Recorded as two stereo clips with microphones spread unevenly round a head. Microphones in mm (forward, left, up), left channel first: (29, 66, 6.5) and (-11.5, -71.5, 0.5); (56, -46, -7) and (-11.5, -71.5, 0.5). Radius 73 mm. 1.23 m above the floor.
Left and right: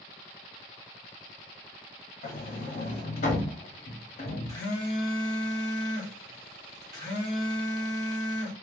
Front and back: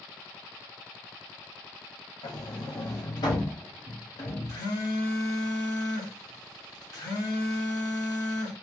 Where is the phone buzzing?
15° left, 1.2 m.